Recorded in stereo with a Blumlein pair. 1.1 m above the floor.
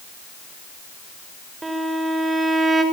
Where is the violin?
10° right, 4 m.